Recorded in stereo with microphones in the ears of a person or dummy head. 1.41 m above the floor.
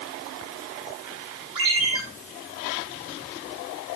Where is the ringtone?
25° right (ahead or behind), 7.5 m.